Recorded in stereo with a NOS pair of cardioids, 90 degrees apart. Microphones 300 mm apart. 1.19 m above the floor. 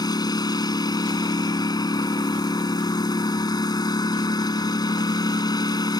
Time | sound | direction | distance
0.0 | a lawn mower | 15° left | ?